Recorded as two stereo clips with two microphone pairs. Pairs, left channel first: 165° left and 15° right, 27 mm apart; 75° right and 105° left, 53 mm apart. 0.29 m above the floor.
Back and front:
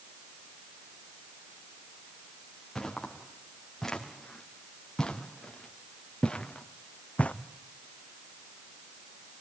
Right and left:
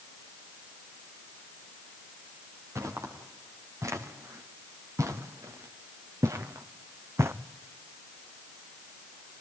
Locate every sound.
2.8 s footsteps: 85° left, 5 m; by 7.3 s 135° left, 1.2 m